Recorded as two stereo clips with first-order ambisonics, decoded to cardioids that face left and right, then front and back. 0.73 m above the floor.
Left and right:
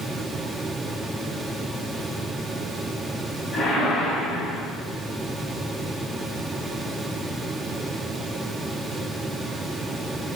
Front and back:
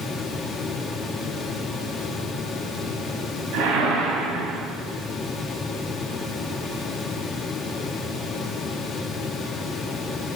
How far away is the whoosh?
About 4 m.